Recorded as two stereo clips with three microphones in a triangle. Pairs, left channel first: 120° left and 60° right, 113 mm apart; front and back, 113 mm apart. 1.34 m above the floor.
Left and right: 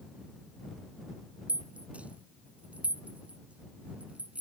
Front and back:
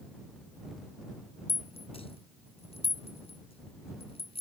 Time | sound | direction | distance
1.5 | a rattle | 15° left | ?